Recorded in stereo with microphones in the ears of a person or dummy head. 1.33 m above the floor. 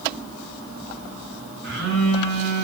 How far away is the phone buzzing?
About 6.5 m.